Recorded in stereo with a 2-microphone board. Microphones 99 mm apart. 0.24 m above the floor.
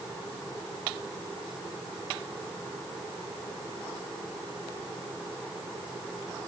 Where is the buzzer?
No buzzer in this recording.